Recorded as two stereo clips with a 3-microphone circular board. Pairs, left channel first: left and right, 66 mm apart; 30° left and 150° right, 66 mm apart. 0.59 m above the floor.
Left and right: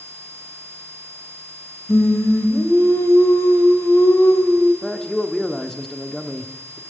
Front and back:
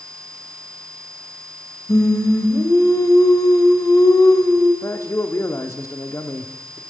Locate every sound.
1.9 s singing: 50° left, 1.4 m
4.8 s a man speaking: 10° left, 0.9 m